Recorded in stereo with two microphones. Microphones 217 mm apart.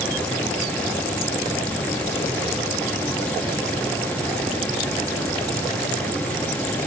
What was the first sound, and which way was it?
Only background noise.